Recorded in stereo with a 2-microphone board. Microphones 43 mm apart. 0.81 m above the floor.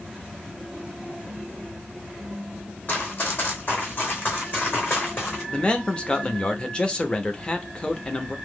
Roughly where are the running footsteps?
Left.